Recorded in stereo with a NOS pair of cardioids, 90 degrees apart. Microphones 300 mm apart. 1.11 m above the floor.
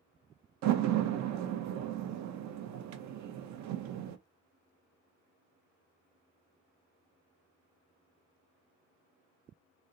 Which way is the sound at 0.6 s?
65° right.